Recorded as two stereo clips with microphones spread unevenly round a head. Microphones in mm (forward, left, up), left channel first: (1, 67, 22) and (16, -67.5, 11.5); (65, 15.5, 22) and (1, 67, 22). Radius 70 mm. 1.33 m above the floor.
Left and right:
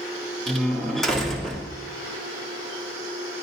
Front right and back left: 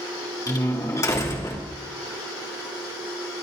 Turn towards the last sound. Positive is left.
turn(degrees=10)